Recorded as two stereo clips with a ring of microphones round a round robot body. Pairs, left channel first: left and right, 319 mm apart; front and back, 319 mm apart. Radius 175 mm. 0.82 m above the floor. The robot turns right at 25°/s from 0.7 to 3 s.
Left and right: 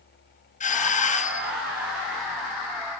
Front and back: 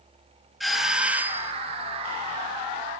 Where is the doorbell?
90° left, 0.9 m; by 1.5 s 110° left, 0.9 m.